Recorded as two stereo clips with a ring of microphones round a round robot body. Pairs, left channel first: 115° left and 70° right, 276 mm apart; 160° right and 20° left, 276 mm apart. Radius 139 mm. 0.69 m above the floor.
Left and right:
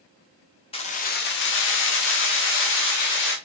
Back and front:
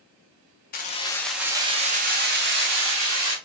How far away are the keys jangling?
About 0.6 m.